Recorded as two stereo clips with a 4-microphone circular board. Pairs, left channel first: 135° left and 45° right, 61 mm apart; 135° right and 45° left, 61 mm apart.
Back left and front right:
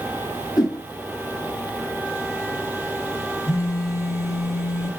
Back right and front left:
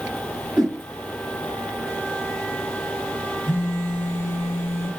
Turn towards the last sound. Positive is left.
turn(degrees=170)